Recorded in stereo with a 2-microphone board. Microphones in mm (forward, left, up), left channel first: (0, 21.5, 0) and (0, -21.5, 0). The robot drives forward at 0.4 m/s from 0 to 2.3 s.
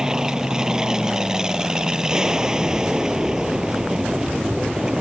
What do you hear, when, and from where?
0.0 s an aircraft: 15° right (ahead or behind)